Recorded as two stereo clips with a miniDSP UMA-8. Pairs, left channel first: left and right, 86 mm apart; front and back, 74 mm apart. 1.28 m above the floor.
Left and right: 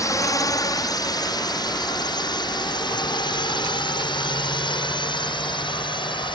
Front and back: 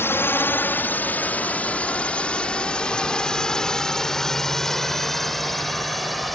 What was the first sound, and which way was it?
A drone, 50° left.